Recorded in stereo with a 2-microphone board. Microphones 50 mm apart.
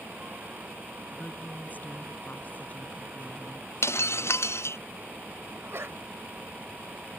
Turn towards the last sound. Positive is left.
turn(degrees=-60)  # may be behind; listen again after turning